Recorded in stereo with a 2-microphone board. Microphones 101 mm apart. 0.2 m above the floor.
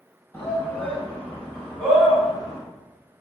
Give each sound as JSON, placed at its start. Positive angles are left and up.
{"t": 0.3, "sound": "a shout", "side_deg": 25, "distance_m": 1.6}